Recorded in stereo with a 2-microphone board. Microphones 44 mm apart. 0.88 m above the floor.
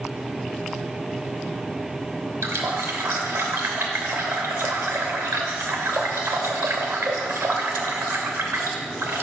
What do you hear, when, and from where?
2.4 s a running tap: 80° right, 0.7 m